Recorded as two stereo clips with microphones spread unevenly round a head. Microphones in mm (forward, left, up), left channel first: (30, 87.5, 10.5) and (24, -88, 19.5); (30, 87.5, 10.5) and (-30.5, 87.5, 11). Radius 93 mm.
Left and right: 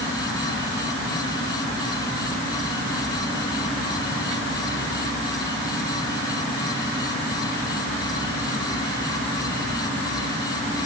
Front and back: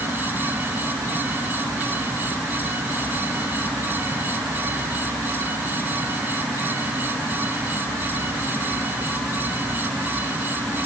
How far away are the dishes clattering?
No dishes clattering in this recording.